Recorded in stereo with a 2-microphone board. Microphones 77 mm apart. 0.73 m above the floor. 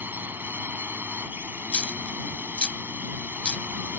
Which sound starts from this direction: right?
A drone, at 0.0 s.